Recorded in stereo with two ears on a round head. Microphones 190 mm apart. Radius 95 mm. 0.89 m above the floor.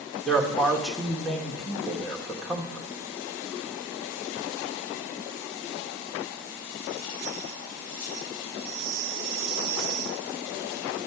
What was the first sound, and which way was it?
A man speaking, centre (ahead or behind).